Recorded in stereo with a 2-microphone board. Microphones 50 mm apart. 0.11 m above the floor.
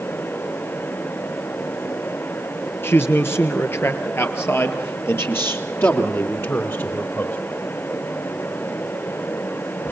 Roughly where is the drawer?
I don't hear a drawer.